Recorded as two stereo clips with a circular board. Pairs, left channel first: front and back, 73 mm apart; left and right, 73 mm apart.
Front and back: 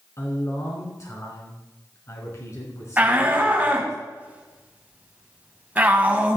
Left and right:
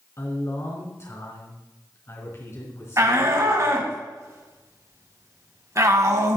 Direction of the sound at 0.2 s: 45° left.